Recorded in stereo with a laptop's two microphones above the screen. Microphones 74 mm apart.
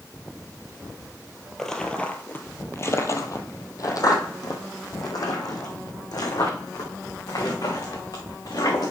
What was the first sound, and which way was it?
Footsteps, 5° left (ahead or behind).